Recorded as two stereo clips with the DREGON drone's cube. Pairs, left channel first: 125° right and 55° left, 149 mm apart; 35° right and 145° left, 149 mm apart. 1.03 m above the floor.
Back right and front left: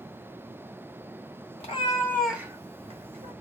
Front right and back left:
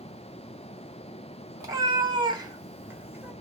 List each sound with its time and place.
1.6 s a cat meowing: 155° right, 0.8 m; by 3.3 s 70° left, 1.0 m